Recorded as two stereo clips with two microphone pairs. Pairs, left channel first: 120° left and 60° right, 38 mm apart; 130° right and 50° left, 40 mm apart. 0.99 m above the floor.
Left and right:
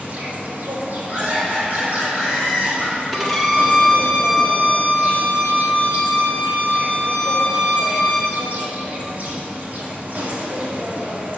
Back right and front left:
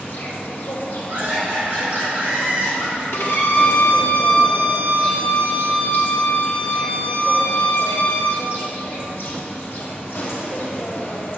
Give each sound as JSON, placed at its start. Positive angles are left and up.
{"t": 0.0, "sound": "an insect", "azimuth_deg": -100, "distance_m": 1.2}
{"t": 1.1, "sound": "laughter", "azimuth_deg": -5, "distance_m": 2.0}
{"t": 3.1, "sound": "a violin", "azimuth_deg": -145, "distance_m": 1.2}